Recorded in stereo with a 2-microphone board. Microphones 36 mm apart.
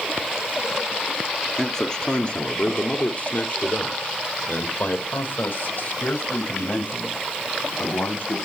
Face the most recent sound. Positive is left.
turn(degrees=75)  # may be behind; listen again after turning